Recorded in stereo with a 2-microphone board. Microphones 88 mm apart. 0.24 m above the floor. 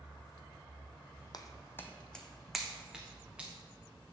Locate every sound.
1.3 s footsteps: 50° left (ahead or behind), 0.6 m; by 3.5 s 15° right (ahead or behind), 1.6 m